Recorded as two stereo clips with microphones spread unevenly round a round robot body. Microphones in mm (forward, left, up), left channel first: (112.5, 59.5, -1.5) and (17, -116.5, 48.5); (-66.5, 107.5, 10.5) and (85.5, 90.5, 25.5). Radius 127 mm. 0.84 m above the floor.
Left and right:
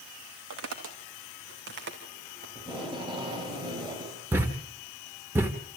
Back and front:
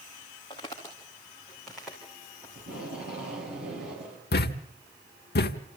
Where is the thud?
160° left, 1.0 m.